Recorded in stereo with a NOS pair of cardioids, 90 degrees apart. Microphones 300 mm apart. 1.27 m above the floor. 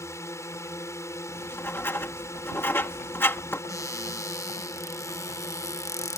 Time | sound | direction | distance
0.0 | a drone | 10° left | ?
1.3 | writing | 5° left | ?
3.7 | a cupboard door | 10° left | ?